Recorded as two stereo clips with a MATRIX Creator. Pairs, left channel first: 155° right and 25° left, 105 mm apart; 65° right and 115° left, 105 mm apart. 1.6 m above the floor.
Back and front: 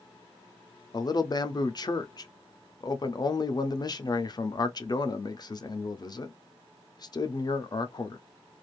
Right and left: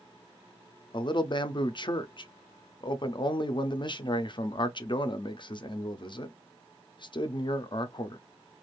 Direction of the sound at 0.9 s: 110° right.